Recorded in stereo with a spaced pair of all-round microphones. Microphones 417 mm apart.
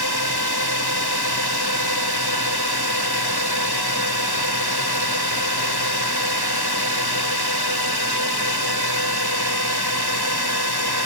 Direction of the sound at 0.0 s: 65° left (ahead or behind).